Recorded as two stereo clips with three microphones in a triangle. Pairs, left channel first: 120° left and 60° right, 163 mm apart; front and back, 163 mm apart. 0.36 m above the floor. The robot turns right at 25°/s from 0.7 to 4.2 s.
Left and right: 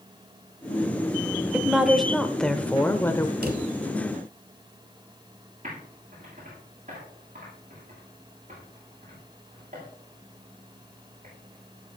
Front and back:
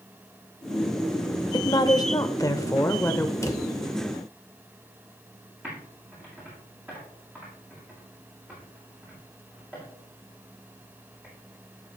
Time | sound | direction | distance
1.5 | a woman speaking | 20° left | 0.9 m
3.4 | a drawer | 70° right | 1.3 m
5.6 | typing on a keyboard | 100° right | 7.5 m